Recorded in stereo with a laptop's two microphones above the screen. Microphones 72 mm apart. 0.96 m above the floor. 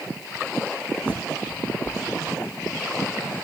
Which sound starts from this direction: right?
A bird, at 1.0 s.